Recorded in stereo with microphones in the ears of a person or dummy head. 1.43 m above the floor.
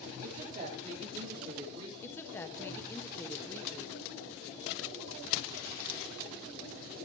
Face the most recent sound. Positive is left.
turn(degrees=10)  # may be behind; listen again after turning